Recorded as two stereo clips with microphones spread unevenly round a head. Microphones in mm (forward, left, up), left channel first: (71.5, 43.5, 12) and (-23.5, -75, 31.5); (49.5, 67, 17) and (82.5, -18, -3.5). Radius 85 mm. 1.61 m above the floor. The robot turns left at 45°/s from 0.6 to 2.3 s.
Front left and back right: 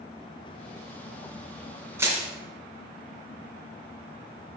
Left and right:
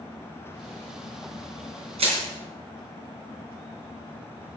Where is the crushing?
60° right, 3.5 m; by 2.2 s 70° right, 3.5 m.